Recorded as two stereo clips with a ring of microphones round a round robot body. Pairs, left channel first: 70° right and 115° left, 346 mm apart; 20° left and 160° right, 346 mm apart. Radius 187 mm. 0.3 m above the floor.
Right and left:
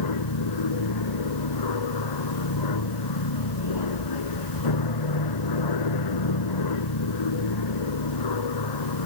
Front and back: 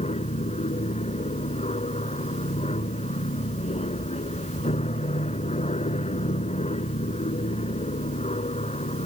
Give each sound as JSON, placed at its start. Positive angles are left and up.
{"t": 0.0, "sound": "an aircraft", "azimuth_deg": -50}